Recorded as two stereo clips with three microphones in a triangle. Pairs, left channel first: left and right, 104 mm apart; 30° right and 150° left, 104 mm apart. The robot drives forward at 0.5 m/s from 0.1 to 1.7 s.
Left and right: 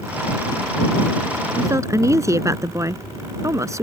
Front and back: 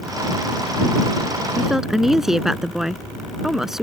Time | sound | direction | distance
1.6 | a woman speaking | 120° right | ?